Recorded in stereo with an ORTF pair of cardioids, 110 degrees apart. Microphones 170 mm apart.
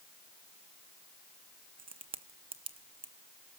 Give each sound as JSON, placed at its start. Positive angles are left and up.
{"t": 1.8, "sound": "a crack", "azimuth_deg": -35, "distance_m": 1.3}